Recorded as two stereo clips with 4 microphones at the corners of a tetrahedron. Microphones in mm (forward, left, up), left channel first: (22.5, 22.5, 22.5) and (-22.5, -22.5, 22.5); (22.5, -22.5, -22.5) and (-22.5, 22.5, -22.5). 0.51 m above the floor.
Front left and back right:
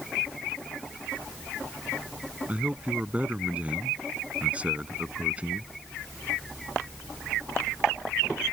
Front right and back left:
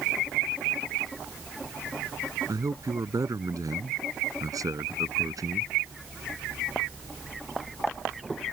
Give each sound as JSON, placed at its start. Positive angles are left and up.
{"t": 2.5, "sound": "a man speaking", "azimuth_deg": 155}